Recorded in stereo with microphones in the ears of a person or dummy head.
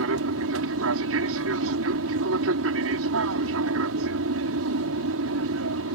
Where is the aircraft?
65° right (ahead or behind).